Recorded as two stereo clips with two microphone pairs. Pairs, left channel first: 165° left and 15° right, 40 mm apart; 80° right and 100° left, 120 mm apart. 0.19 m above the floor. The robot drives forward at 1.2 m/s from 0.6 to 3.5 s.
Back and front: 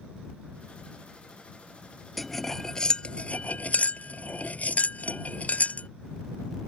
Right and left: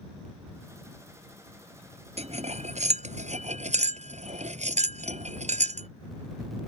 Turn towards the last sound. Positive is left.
turn(degrees=115)